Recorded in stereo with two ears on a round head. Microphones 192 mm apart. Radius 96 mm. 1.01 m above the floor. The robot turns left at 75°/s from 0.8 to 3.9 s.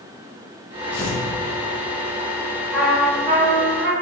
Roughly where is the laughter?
I don't hear laughter.